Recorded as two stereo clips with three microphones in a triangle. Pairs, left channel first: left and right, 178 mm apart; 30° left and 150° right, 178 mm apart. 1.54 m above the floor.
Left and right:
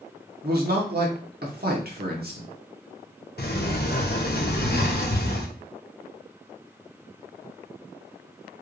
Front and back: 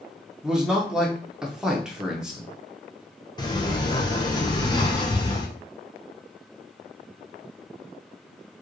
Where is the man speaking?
65° right, 1.2 m.